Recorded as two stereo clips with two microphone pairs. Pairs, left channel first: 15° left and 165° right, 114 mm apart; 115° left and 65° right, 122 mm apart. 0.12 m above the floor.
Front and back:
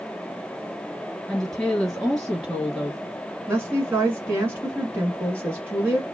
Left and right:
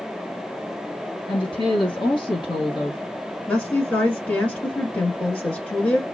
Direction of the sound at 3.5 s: Straight behind.